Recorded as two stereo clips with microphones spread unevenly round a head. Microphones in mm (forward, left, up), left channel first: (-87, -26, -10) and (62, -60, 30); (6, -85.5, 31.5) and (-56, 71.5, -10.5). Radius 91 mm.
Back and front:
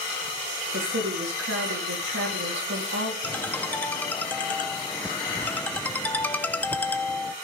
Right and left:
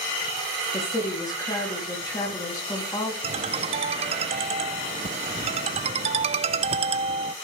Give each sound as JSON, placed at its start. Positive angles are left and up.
{"t": 0.7, "sound": "a woman speaking", "azimuth_deg": 5, "distance_m": 3.5}
{"t": 3.2, "sound": "a ringtone", "azimuth_deg": 65, "distance_m": 0.6}